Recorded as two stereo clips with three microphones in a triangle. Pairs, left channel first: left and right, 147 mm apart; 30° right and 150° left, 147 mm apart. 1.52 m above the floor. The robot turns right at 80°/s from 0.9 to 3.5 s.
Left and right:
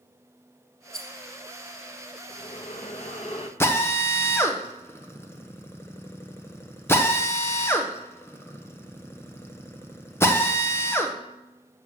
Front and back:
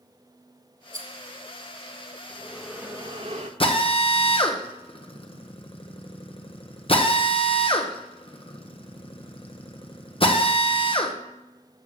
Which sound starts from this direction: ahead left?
Breathing, at 2.3 s.